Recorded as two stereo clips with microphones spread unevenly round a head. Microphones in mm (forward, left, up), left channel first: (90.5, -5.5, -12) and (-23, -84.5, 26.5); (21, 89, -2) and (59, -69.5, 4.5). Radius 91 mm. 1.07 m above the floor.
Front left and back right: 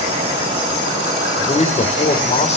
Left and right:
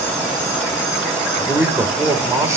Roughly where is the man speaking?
Ahead.